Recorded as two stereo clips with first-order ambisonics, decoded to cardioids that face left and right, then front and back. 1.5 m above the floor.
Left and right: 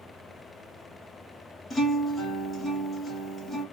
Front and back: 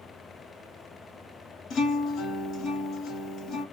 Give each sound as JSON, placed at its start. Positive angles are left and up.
{"t": 1.7, "sound": "a guitar", "azimuth_deg": 15, "distance_m": 1.5}